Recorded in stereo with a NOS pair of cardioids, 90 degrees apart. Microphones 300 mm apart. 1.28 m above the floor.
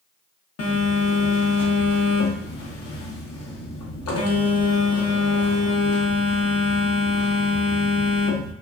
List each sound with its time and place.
0.6 s a phone buzzing: 55° left, 0.8 m